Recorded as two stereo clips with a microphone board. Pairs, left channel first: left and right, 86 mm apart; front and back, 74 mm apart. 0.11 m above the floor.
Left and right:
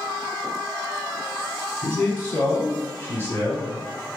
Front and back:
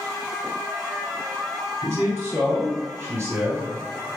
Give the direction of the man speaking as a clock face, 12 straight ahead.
7 o'clock.